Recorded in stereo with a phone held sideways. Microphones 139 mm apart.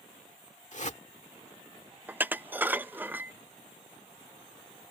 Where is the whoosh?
60° left (ahead or behind).